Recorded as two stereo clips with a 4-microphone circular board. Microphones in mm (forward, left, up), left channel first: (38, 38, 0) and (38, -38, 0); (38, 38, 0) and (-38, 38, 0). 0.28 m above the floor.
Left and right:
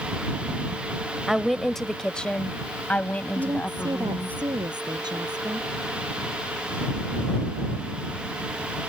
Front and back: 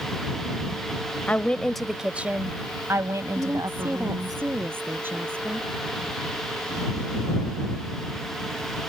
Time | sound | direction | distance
1.3 | a woman speaking | 5° right | ?
3.4 | a woman speaking | 115° right | ?